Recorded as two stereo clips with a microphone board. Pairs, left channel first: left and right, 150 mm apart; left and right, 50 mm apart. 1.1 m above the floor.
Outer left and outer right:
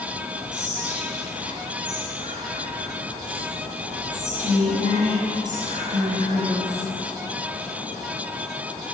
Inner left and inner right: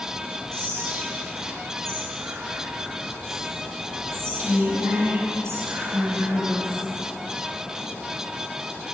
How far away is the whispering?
About 7 m.